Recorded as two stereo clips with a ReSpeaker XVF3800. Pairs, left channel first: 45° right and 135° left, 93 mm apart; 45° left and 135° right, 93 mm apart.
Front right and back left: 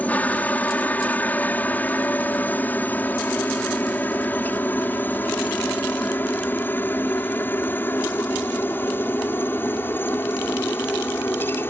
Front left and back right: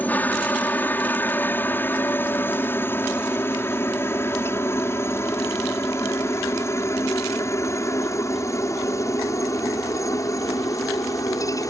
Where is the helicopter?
5° left; by 11.7 s 10° left.